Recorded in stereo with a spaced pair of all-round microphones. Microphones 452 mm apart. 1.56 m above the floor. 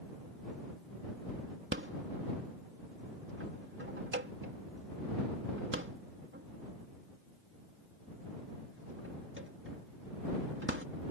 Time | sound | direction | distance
1.7 | a rattle | 25° right (ahead or behind) | ?